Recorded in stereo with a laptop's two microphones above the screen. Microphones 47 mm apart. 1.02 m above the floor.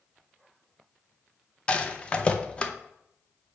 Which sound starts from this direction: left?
A rattle, at 1.7 s.